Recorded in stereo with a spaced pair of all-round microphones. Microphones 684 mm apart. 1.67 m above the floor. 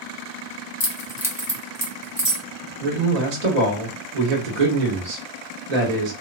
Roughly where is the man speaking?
Right.